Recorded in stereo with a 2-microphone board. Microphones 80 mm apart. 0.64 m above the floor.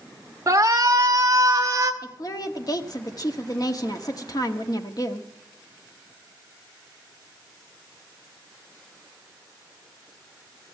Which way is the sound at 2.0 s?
50° left (ahead or behind).